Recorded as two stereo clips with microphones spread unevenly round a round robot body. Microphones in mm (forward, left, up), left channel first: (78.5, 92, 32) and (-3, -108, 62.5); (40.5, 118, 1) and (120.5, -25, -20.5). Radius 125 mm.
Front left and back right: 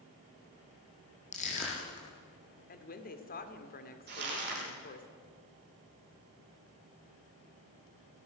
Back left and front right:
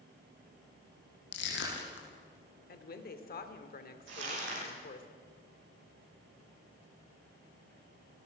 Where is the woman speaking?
100° left, 2 m.